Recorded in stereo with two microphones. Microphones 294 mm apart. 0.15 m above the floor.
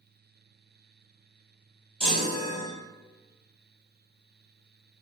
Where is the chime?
Centre (ahead or behind), 1.2 m.